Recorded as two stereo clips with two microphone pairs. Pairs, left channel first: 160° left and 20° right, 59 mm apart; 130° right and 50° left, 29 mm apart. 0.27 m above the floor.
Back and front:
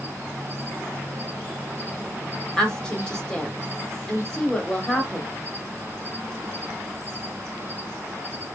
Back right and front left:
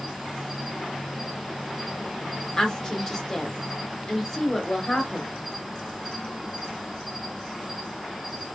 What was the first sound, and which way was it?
An insect, 30° right.